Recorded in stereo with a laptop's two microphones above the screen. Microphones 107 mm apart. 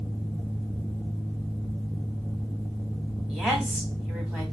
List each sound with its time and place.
0.0 s a fan: 5° left (ahead or behind), 1.3 m
3.3 s a woman speaking: 10° right (ahead or behind), 3 m